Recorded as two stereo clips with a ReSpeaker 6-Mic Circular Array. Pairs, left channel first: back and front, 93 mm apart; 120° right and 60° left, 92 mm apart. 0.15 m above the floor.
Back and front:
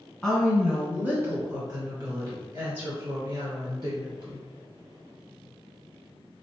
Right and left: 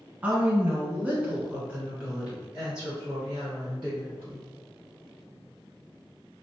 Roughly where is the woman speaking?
Left.